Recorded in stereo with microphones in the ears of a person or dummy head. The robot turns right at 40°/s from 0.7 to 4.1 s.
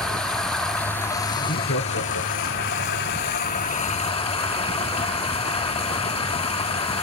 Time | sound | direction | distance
0.0 | running water | 5° left | 1.2 m
1.4 | laughter | 50° left | 1.0 m